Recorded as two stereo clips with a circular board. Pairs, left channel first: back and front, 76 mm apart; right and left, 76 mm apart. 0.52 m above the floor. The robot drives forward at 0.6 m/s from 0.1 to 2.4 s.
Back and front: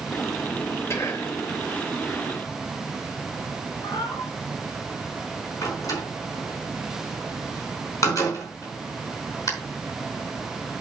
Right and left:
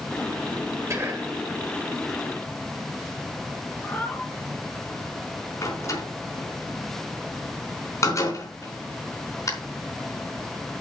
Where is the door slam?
135° right, 4.5 m.